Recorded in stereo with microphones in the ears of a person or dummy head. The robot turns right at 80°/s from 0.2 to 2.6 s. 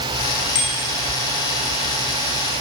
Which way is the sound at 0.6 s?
60° left (ahead or behind).